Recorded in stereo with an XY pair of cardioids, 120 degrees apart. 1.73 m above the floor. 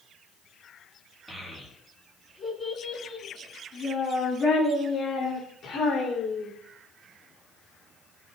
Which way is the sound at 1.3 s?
5° right.